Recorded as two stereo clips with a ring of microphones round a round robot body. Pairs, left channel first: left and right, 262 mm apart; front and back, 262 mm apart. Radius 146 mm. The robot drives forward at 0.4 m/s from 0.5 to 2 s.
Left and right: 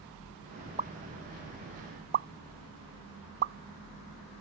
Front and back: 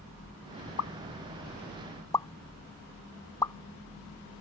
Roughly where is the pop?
Ahead right.